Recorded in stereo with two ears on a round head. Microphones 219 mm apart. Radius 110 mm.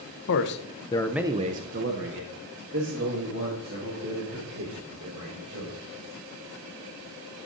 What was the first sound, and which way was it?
A man speaking, 55° left (ahead or behind).